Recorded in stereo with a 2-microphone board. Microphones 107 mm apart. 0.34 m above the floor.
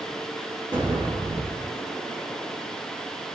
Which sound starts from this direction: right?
An explosion, at 0.7 s.